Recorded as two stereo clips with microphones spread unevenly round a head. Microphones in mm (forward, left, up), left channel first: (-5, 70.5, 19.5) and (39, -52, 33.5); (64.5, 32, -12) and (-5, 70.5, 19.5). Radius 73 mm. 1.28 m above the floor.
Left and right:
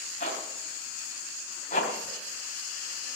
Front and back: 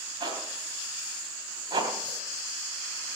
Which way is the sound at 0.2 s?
155° left.